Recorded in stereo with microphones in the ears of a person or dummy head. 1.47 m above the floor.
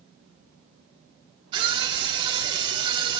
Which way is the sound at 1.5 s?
25° right (ahead or behind).